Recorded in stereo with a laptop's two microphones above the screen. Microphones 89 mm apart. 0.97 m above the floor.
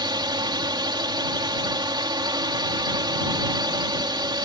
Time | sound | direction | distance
0.0 | a drone | 55° right (ahead or behind) | ?